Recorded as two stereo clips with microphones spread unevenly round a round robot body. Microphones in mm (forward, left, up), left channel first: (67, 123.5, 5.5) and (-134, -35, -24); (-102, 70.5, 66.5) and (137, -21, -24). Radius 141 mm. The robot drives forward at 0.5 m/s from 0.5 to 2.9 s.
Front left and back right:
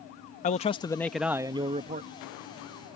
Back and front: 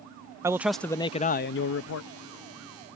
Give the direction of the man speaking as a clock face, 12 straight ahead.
12 o'clock.